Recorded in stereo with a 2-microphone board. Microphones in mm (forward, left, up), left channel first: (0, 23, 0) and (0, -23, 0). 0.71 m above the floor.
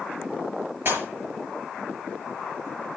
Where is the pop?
45° right (ahead or behind), 6 m.